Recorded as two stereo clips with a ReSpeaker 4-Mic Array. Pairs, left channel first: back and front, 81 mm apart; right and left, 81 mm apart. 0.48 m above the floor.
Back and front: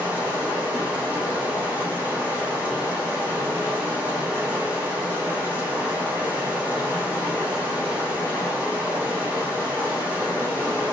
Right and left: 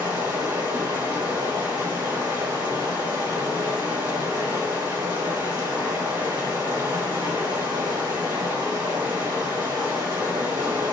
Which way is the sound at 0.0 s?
70° left.